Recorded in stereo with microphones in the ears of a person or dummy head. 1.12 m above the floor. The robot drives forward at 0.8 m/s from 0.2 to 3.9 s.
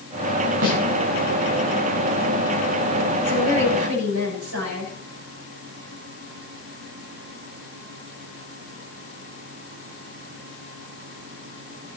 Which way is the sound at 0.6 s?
60° right (ahead or behind).